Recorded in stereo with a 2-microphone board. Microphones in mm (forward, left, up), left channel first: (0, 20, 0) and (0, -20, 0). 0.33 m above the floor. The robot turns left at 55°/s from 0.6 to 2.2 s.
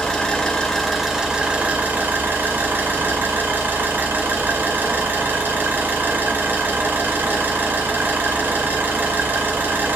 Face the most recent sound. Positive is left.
turn(degrees=-70)